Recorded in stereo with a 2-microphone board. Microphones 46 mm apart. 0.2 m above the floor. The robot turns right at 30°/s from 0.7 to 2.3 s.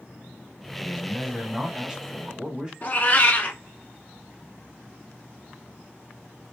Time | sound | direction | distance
0.8 | a man speaking | 20° right (ahead or behind) | 1.0 m
2.8 | a cat meowing | 40° left (ahead or behind) | 0.8 m